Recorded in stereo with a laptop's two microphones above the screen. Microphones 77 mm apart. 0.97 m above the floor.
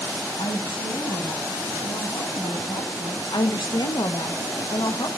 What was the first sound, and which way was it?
A woman speaking, 60° left (ahead or behind).